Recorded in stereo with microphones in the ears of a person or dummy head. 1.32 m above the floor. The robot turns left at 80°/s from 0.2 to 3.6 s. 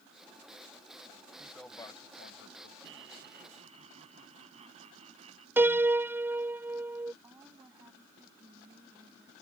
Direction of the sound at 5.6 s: 10° right (ahead or behind).